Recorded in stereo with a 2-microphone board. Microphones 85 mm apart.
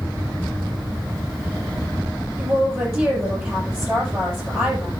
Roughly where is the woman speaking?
Right.